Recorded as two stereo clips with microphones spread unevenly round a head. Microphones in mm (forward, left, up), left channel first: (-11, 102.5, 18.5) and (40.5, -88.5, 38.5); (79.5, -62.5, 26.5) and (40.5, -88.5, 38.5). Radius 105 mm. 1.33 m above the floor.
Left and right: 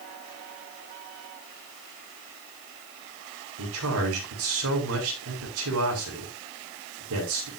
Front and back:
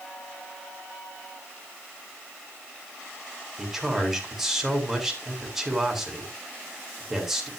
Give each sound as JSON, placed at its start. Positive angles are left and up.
{"t": 3.6, "sound": "a man speaking", "azimuth_deg": -65, "distance_m": 7.0}